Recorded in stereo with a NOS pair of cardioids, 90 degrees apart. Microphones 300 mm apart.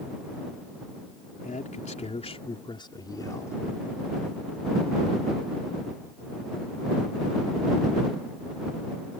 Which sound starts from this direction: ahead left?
A man speaking, at 1.4 s.